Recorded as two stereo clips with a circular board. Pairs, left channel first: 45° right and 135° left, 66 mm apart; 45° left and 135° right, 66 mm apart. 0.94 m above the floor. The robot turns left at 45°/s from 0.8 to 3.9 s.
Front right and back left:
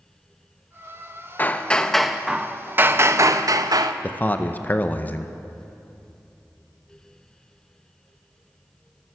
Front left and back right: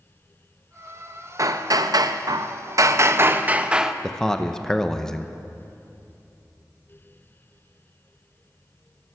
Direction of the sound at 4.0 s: 30° right.